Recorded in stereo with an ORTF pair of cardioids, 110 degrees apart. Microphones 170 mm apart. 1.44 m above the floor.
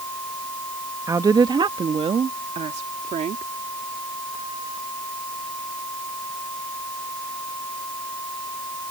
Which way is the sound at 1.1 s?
20° right.